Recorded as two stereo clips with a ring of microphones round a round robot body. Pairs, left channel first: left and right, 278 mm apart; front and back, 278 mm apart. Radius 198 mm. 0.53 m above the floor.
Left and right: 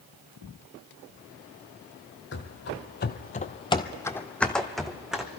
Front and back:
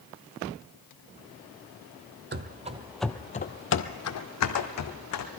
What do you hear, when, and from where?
2.3 s running footsteps: 140° left, 0.8 m; by 5.3 s 5° right, 1.6 m